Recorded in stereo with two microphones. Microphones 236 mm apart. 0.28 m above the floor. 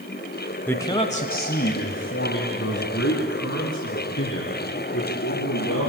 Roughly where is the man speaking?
Centre.